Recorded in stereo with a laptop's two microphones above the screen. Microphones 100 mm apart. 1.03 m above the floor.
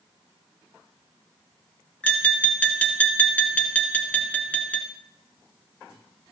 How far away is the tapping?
About 2 m.